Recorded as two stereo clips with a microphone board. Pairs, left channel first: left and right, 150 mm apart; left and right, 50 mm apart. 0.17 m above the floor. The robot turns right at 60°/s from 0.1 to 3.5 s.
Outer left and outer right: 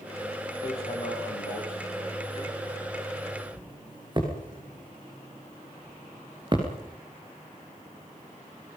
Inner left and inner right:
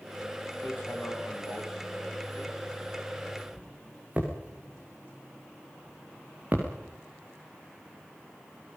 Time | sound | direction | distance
0.6 | hammering | 40° left (ahead or behind) | 8 m